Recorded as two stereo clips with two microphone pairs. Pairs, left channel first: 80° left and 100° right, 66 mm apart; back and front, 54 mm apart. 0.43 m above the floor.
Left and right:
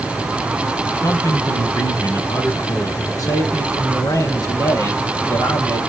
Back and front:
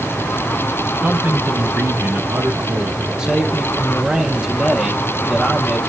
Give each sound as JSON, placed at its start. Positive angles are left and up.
{"t": 1.0, "sound": "a man speaking", "azimuth_deg": 55, "distance_m": 2.5}
{"t": 3.2, "sound": "a man speaking", "azimuth_deg": 75, "distance_m": 2.5}